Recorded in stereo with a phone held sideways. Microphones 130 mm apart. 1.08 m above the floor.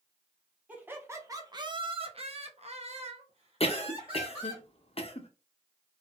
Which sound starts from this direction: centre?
Laughter, at 0.7 s.